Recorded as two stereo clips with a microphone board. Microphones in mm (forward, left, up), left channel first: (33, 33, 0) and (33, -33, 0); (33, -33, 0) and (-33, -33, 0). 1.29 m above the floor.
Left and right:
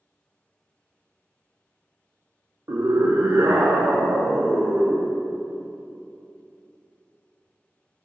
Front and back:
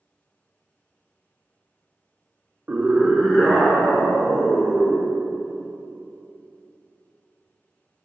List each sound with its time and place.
2.7 s a scream: 120° right, 0.8 m; by 5.1 s 55° right, 3 m